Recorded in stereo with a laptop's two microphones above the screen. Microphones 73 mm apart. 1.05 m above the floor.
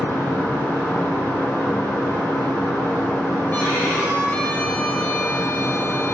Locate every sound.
0.0 s a fan: 35° left (ahead or behind), 1.7 m
3.5 s a violin: 30° left (ahead or behind), 1.0 m